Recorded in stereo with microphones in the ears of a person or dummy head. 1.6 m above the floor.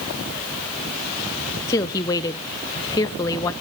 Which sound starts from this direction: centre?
A woman speaking, at 1.7 s.